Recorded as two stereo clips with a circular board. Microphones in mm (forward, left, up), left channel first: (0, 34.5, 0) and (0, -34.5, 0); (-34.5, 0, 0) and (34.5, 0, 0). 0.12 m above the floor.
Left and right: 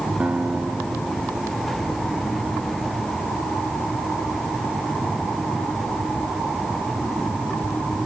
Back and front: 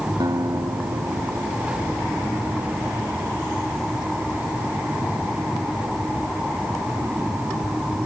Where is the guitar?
20° right.